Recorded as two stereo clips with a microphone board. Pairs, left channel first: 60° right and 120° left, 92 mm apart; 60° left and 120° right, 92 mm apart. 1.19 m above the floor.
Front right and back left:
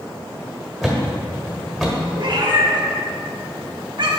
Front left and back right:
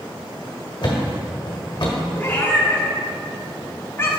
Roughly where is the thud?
Ahead left.